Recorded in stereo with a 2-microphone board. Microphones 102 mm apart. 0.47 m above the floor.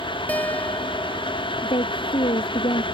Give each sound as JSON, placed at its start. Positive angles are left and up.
{"t": 0.3, "sound": "a guitar", "side_deg": 15}
{"t": 1.6, "sound": "a woman speaking", "side_deg": 55}